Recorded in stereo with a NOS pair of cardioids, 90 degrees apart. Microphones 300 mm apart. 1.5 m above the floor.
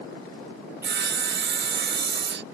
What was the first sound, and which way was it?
Sawing, 40° right.